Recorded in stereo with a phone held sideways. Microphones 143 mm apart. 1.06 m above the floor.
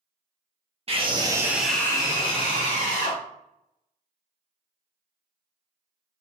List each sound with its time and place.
0.9 s a scream: 40° right (ahead or behind), 0.7 m; by 3.2 s 60° left (ahead or behind), 1.0 m